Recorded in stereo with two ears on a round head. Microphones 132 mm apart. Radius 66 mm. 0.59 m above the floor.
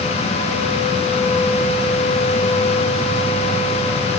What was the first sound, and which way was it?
Only background noise.